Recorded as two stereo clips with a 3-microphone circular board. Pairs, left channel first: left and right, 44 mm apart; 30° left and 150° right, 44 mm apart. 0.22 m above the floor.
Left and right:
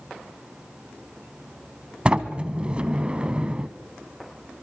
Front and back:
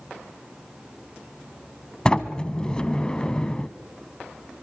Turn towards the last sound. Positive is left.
turn(degrees=-35)